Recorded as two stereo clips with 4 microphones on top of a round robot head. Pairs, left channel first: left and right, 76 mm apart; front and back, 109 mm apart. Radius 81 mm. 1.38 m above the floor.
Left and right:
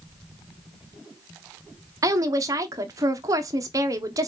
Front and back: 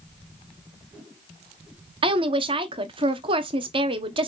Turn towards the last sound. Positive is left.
turn(degrees=-135)